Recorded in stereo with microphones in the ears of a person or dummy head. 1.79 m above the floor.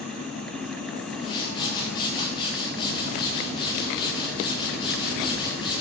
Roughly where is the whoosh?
Left.